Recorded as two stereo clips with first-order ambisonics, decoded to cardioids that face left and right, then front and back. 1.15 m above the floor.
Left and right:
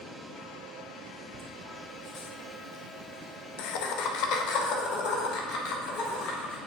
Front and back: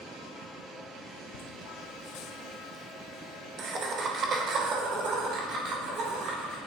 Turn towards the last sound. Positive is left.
turn(degrees=130)